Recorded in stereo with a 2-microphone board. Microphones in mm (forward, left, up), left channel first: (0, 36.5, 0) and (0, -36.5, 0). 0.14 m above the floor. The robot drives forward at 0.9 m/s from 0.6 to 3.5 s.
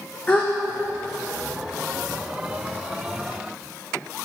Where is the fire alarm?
No fire alarm in this recording.